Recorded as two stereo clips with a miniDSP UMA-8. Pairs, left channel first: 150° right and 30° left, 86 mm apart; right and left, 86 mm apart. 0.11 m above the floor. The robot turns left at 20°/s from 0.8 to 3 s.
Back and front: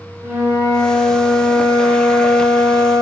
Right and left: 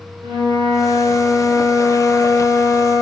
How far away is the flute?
About 0.8 m.